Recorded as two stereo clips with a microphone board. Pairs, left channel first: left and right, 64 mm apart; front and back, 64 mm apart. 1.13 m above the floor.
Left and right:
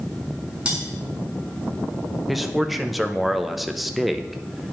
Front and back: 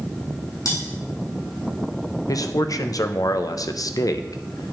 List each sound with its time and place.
0.7 s cutlery clinking: 15° right, 3.5 m
2.3 s a man speaking: 5° right, 0.6 m